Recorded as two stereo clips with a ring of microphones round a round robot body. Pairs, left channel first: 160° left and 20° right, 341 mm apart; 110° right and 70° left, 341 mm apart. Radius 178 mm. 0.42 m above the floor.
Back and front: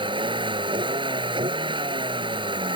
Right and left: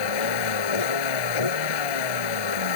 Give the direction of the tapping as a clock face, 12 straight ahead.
No tapping in this recording.